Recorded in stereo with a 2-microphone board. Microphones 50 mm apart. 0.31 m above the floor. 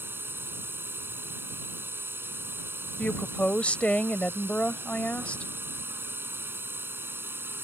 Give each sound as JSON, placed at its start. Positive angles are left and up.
{"t": 0.0, "sound": "a drone", "side_deg": -50}
{"t": 3.0, "sound": "a woman speaking", "side_deg": 25}